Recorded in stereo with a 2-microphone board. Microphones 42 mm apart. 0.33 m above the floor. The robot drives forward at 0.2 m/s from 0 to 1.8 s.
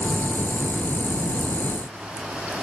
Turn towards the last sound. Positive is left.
No sound to turn to.